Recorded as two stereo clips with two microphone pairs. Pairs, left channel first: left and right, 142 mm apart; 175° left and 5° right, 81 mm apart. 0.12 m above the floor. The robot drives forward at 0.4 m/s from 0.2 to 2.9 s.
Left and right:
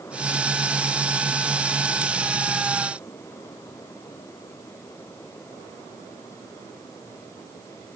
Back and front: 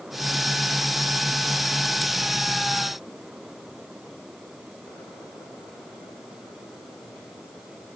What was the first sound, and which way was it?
Only background noise.